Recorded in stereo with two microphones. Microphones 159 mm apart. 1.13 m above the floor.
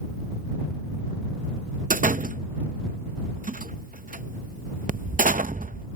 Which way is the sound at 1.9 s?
65° right (ahead or behind).